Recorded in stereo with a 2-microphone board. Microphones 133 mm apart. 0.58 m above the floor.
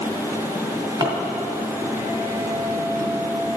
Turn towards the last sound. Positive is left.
turn(degrees=-35)  # may be behind; listen again after turning